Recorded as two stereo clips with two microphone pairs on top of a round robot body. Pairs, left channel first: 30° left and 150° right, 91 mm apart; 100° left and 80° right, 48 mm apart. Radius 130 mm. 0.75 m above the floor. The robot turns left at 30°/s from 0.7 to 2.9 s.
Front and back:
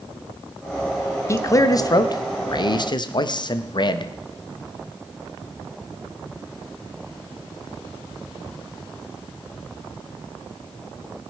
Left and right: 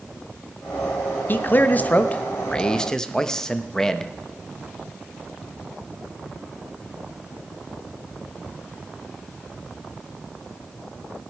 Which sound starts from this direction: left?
A man speaking, at 1.3 s.